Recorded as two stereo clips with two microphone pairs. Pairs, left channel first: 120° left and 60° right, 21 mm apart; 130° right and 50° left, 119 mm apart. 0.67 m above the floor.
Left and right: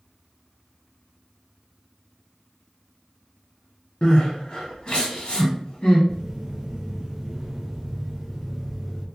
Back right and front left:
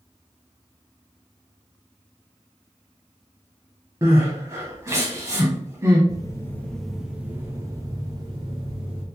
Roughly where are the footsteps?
Right.